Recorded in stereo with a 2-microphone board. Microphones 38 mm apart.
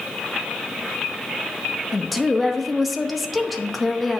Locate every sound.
1.9 s a woman speaking: centre (ahead or behind), 0.8 m